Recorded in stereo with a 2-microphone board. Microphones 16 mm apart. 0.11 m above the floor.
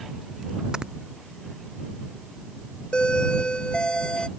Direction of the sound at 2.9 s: 55° left (ahead or behind).